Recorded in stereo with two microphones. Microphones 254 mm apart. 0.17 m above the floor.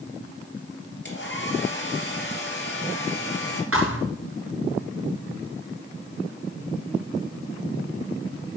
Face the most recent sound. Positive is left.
turn(degrees=-60)  # may be behind; listen again after turning